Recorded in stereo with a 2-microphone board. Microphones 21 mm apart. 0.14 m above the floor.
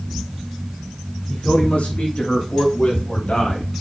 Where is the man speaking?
70° left (ahead or behind), 7.5 m; by 3.7 s 75° left (ahead or behind), 5 m.